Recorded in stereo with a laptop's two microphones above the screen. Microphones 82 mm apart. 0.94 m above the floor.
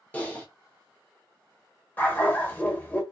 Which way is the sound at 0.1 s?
15° left (ahead or behind).